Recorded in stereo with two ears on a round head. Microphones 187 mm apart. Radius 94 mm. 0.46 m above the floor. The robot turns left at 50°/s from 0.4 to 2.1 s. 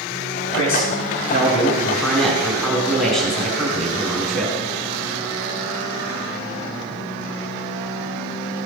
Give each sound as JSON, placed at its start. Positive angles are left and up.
{"t": 0.5, "sound": "a man speaking", "azimuth_deg": 80, "distance_m": 5.0}